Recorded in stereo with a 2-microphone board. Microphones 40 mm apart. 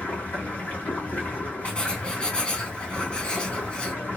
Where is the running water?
45° left (ahead or behind), 1.9 m.